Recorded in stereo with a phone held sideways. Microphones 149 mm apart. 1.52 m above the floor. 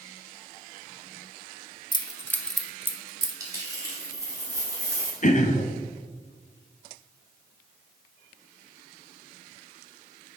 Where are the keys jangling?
25° left (ahead or behind), 0.8 m; by 3.3 s 30° right (ahead or behind), 0.8 m.